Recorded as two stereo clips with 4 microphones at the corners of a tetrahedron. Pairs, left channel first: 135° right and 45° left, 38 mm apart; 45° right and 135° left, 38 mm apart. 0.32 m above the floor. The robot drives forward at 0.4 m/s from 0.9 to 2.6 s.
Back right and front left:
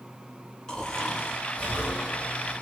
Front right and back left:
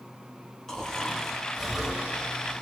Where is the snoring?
95° right, 0.9 m; by 2.6 s 155° right, 1.1 m.